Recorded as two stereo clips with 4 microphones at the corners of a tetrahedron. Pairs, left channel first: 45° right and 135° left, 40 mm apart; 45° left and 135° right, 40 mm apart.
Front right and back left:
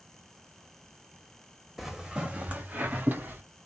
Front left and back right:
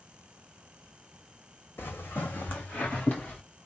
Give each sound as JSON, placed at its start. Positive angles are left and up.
{"t": 1.8, "sound": "footsteps", "azimuth_deg": 50, "distance_m": 1.1}